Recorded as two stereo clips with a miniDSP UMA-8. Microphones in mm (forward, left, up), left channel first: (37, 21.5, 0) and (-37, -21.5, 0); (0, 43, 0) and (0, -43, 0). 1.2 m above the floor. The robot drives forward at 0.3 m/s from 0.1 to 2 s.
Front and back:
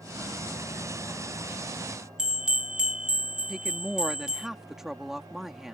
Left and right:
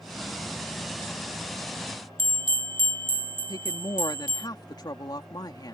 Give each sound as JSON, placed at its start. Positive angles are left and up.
{"t": 2.2, "sound": "a bell", "azimuth_deg": -70}
{"t": 3.5, "sound": "a woman speaking", "azimuth_deg": 125}